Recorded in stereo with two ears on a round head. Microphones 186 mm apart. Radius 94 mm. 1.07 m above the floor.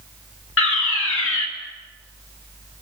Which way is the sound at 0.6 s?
65° left (ahead or behind).